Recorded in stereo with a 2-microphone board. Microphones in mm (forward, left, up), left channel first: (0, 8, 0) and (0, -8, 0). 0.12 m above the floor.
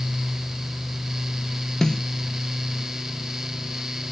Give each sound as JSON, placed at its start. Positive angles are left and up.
{"t": 1.8, "sound": "a snare drum", "side_deg": 40, "distance_m": 0.6}